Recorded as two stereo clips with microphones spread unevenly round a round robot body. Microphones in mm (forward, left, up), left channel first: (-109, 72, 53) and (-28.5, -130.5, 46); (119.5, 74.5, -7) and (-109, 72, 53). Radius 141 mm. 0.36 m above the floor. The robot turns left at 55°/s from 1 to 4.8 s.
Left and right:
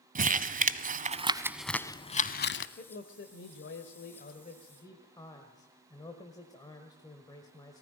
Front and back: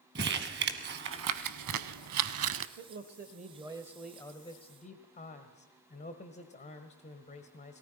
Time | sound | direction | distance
0.1 | crumpling | 125° right | 0.9 m
2.8 | a man speaking | 150° left | 1.4 m